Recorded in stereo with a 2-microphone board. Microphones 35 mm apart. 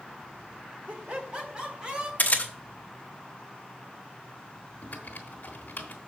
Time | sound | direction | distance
0.9 | laughter | 45° right (ahead or behind) | 1.8 m
2.2 | a camera shutter | 50° left (ahead or behind) | 1.0 m
4.8 | typing on a keyboard | 60° left (ahead or behind) | 1.2 m